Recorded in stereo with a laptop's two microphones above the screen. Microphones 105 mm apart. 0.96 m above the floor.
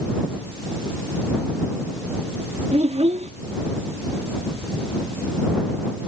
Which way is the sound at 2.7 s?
85° right.